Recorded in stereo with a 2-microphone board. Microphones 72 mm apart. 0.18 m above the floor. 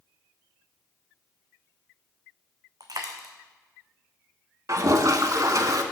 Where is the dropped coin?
60° right (ahead or behind), 0.9 m.